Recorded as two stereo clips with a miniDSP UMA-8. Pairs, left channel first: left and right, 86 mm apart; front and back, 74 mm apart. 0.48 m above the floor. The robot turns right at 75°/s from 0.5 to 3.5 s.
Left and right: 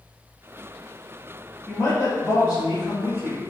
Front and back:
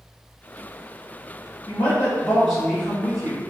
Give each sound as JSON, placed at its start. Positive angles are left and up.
{"t": 1.7, "sound": "a woman speaking", "azimuth_deg": 30, "distance_m": 2.0}